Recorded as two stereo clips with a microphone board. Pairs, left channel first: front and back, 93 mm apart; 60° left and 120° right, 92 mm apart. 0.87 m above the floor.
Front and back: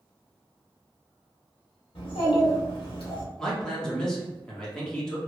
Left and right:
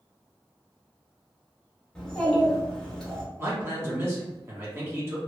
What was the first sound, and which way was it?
A child speaking, 20° right.